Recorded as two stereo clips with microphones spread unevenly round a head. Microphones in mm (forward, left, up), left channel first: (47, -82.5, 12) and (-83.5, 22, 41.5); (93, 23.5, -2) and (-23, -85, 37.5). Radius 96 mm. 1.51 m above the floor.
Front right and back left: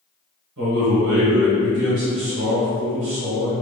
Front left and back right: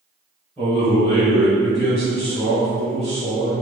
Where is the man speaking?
130° left, 1.1 m.